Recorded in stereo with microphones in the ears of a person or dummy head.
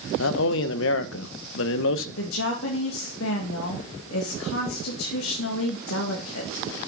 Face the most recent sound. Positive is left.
turn(degrees=70)  # may be behind; listen again after turning